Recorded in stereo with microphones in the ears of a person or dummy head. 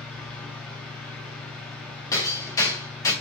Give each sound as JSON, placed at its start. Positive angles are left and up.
{"t": 0.0, "sound": "a fan", "side_deg": 5, "distance_m": 0.7}
{"t": 2.1, "sound": "hammering", "side_deg": 15, "distance_m": 0.7}